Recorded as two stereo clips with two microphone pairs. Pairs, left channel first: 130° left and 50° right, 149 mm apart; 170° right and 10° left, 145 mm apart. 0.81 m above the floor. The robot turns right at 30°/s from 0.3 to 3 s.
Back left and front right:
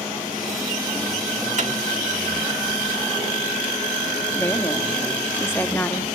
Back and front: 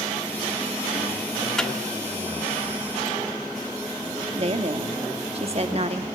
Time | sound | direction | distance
1.6 | a microwave | 85° right | 1.8 m
4.3 | a woman speaking | 55° left | 1.0 m